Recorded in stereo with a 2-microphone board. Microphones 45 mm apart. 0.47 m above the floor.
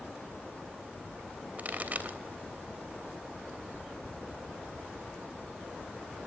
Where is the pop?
35° right (ahead or behind), 2.5 m.